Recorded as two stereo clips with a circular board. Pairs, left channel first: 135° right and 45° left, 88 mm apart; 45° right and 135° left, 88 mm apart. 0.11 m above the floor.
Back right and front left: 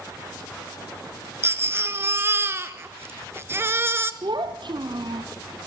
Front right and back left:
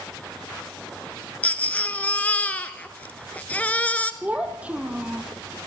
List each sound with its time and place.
1.4 s a baby crying: 15° left, 1.2 m
4.2 s a child speaking: 65° left, 2 m